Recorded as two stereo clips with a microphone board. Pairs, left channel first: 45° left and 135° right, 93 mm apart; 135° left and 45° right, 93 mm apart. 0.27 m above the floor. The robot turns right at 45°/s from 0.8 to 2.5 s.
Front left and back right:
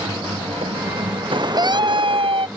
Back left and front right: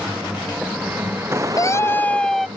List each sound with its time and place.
0.0 s a vehicle: 120° right; by 2.6 s 60° right
1.6 s a scream: 175° right; by 2.5 s 135° right